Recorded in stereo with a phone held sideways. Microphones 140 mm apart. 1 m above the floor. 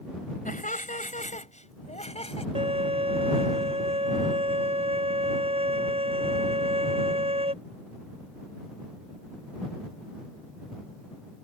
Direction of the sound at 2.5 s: 45° right (ahead or behind).